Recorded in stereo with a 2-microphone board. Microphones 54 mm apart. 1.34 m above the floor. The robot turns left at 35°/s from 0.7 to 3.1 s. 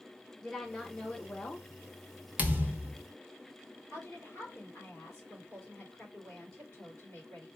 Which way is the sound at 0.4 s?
Straight behind.